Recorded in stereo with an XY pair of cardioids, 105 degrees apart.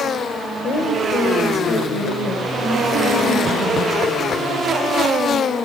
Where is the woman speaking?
70° left, 4.5 m.